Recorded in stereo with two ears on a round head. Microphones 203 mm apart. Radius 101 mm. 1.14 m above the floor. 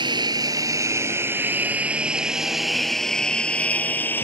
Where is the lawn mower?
20° right (ahead or behind); by 4.2 s 10° left (ahead or behind).